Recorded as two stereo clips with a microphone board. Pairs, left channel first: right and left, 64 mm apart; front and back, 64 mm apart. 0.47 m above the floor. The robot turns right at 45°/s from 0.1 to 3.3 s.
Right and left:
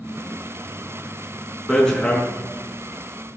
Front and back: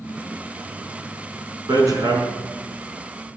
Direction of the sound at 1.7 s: 175° right.